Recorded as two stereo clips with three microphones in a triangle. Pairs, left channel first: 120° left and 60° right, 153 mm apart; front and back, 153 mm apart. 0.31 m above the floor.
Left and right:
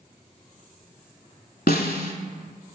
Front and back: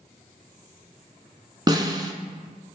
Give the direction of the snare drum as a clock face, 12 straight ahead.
8 o'clock.